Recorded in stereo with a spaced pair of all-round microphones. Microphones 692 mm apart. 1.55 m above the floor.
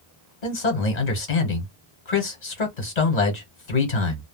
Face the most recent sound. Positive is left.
turn(degrees=70)  # may be behind; listen again after turning